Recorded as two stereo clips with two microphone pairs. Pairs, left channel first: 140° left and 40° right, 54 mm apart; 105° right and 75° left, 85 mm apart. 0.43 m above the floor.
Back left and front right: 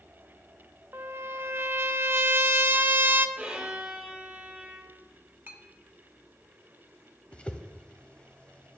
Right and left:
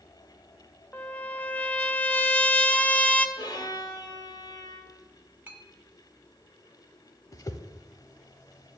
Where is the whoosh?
150° right, 0.7 m.